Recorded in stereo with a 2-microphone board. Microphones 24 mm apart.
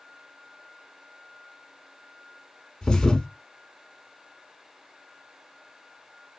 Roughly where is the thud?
Left.